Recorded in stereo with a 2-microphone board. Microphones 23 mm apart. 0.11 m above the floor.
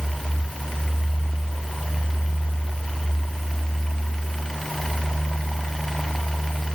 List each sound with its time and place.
Only background noise.